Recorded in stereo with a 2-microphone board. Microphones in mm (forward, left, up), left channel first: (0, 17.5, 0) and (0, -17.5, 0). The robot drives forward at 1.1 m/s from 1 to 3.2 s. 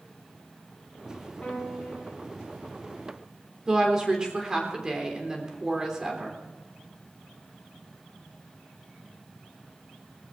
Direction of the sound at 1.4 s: 10° left (ahead or behind).